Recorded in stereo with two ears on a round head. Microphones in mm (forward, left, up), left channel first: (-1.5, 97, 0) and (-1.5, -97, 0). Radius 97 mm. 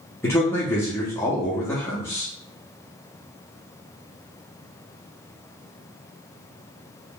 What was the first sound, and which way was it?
A man speaking, 10° left (ahead or behind).